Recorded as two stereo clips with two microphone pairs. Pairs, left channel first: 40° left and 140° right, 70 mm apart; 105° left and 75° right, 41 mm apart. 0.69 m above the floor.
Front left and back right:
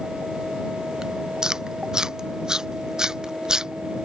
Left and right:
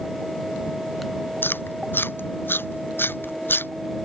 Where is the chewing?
140° left.